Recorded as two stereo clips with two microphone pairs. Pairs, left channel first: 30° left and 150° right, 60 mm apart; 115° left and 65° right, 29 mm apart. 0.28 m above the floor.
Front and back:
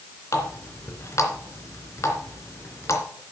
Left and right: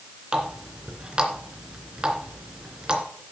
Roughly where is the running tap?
Ahead.